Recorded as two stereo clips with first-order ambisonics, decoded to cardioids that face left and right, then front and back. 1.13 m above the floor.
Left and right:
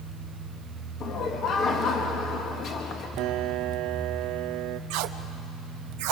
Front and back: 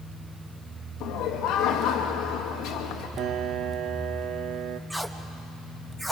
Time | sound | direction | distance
1.0 | laughter | 35° left | 1.6 m
3.2 | a piano | 125° right | 0.6 m
4.9 | tape being pulled | 95° right | 0.8 m